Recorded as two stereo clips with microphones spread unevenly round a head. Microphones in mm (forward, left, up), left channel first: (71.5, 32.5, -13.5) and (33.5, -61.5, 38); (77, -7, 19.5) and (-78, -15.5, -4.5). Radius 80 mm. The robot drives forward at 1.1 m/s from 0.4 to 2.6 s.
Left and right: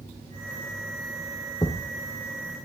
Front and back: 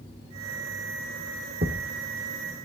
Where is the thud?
140° left, 2.0 m; by 2.6 s 155° left, 3 m.